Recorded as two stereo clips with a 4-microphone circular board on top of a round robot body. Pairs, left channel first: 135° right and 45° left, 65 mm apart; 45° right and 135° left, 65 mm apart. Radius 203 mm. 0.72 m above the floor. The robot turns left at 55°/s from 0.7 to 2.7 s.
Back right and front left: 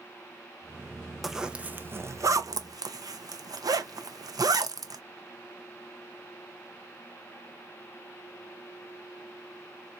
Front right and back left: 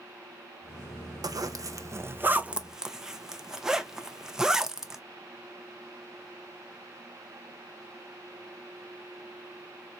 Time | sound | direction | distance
1.2 | a zipper | 135° left | 0.7 m